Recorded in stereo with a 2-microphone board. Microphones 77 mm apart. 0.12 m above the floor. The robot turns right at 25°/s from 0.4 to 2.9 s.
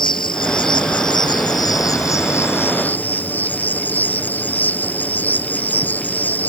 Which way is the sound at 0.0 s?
95° left.